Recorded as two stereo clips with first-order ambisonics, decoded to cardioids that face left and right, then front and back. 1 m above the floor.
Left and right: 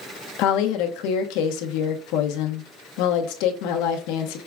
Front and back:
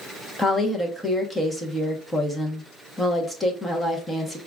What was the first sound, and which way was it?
A woman speaking, 85° left.